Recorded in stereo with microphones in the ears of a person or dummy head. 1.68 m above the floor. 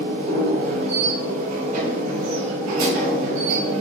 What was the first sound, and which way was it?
A machine running, 40° right (ahead or behind).